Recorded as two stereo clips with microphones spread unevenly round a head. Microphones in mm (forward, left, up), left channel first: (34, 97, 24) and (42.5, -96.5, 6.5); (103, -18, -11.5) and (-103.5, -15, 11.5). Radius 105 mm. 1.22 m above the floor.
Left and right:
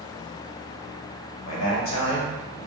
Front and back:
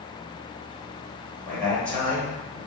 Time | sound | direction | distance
1.4 | a man speaking | 85° left | 1.4 m